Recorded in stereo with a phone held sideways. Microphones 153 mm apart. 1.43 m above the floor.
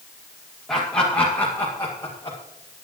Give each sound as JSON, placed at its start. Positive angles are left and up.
{"t": 0.7, "sound": "laughter", "side_deg": 5, "distance_m": 2.0}